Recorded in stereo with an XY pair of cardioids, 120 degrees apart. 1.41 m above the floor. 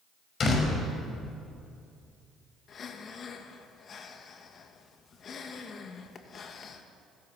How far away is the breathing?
About 2 m.